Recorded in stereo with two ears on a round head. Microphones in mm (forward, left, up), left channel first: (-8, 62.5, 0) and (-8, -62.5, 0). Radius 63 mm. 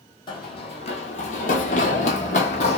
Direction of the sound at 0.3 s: 35° left (ahead or behind).